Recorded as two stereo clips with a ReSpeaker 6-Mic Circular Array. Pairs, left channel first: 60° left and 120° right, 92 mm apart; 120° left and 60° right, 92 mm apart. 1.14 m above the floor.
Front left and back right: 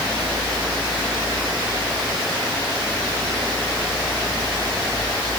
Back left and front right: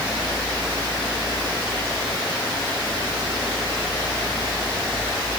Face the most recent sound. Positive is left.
No sound to turn to.